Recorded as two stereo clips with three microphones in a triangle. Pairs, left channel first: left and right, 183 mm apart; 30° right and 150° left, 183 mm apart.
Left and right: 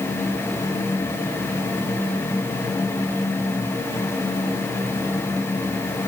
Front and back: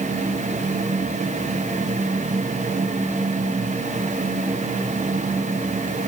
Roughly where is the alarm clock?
No alarm clock in this recording.